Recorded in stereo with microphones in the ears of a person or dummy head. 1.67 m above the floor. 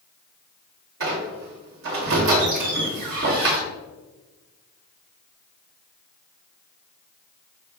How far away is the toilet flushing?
I don't hear a toilet flushing.